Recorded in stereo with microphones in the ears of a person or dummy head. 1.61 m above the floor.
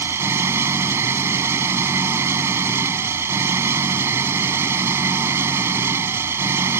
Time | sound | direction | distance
0.0 | an engine running | 15° right (ahead or behind) | ?